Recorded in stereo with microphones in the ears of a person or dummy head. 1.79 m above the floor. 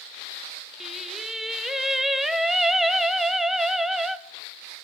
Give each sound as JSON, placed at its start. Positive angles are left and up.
{"t": 0.8, "sound": "singing", "side_deg": 0, "distance_m": 0.6}